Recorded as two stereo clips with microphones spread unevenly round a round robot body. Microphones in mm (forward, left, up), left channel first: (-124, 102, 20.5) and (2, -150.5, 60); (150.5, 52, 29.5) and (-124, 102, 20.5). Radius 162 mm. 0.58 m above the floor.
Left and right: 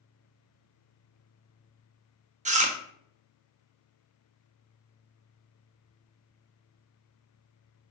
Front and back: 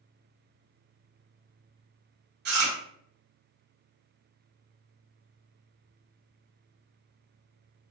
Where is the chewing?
130° right, 0.9 m.